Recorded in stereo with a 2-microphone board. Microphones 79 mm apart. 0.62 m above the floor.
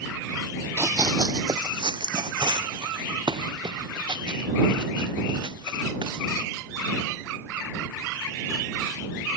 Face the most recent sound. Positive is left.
turn(degrees=-70)  # may be behind; listen again after turning